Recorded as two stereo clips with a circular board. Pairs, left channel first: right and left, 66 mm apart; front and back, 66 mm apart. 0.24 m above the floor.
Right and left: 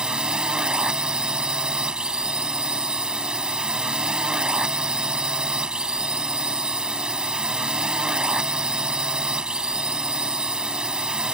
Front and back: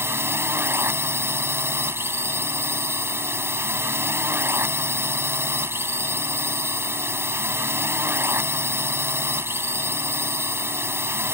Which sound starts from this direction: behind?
A drone, at 0.0 s.